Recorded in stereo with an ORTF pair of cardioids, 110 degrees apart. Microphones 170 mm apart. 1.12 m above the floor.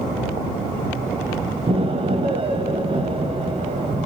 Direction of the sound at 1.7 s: 35° right.